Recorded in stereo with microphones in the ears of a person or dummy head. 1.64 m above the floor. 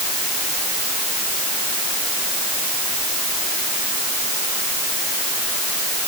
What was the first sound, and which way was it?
Only background noise.